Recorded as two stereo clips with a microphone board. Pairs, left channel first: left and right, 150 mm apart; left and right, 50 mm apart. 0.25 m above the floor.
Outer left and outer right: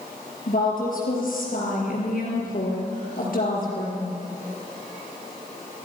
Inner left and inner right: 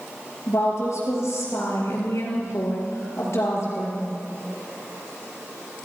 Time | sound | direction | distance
0.5 | a woman speaking | 65° left (ahead or behind) | 5 m